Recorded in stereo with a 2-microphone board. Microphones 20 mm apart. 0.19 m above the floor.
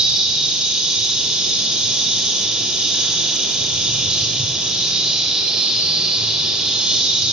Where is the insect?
50° right (ahead or behind), 1.4 m.